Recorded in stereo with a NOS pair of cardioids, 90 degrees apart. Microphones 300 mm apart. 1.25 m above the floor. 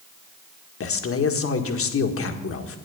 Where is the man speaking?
50° left, 1.7 m.